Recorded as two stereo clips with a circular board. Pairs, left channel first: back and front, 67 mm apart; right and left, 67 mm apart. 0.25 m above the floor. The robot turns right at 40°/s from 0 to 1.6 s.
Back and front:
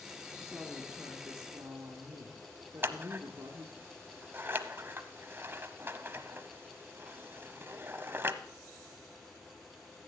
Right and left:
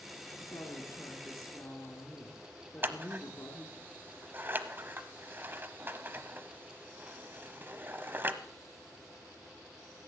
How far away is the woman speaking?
About 2.5 m.